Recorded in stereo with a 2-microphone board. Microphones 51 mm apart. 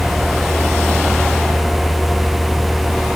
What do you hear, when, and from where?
Only background noise.